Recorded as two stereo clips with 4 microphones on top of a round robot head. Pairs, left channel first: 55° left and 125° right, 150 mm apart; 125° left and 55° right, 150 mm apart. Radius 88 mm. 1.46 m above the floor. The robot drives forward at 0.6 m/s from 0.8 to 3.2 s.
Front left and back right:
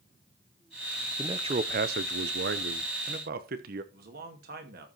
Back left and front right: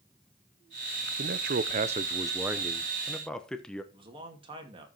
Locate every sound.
1.2 s a man speaking: 60° right, 0.6 m; by 3.8 s 150° right, 1.0 m
3.9 s a man speaking: 110° right, 2.5 m